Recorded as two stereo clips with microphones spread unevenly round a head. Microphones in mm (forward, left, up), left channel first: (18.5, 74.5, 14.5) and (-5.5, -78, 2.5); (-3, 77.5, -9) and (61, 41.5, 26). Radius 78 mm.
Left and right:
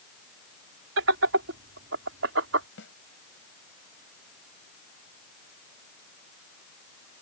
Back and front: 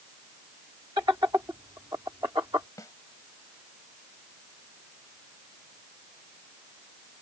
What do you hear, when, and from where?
1.0 s laughter: 95° right
2.8 s a snare drum: 100° left